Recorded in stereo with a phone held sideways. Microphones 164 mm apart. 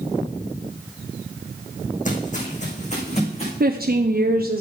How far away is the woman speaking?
About 0.6 m.